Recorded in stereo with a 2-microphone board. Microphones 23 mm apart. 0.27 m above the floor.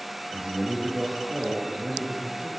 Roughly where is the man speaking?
Right.